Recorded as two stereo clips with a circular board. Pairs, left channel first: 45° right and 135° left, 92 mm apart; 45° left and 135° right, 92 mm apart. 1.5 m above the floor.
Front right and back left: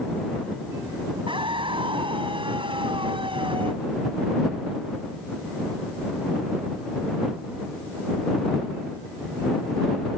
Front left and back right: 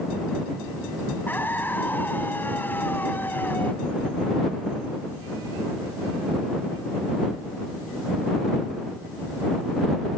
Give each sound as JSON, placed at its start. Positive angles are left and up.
{"t": 1.3, "sound": "a scream", "azimuth_deg": 115}